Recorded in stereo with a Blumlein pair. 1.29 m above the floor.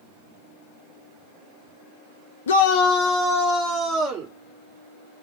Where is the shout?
65° left, 0.5 m; by 4.3 s 15° right, 1.6 m.